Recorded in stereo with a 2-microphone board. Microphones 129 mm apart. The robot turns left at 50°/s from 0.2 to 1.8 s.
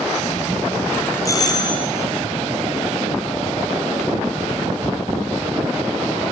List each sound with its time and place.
1.2 s a doorbell: 25° left (ahead or behind), 2.5 m; by 1.9 s 45° left (ahead or behind), 2.5 m